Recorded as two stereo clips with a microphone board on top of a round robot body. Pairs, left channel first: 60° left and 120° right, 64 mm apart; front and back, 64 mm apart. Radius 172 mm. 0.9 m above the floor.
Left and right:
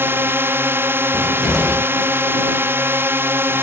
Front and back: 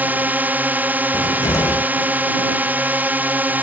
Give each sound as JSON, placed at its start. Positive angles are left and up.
{"t": 0.0, "sound": "a drone", "azimuth_deg": -135}
{"t": 1.1, "sound": "a cupboard door", "azimuth_deg": -30}